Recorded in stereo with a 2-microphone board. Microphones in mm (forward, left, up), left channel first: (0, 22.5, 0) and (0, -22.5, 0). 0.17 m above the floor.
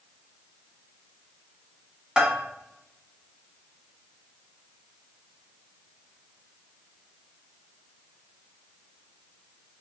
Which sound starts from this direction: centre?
A bell, at 2.2 s.